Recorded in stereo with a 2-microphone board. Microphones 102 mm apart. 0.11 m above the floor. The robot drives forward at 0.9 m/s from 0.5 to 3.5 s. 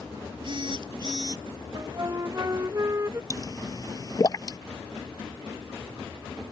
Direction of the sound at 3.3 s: 35° left (ahead or behind).